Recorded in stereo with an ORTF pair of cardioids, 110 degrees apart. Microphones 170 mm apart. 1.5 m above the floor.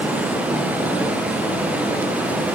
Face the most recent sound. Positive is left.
turn(degrees=-10)